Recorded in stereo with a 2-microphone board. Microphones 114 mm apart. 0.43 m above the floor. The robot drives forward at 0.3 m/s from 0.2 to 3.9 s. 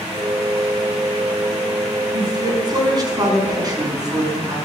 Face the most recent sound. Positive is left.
turn(degrees=-35)  # may be behind; listen again after turning